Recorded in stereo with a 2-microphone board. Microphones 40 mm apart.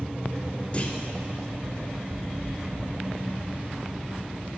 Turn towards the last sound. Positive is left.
turn(degrees=35)  # may be behind; listen again after turning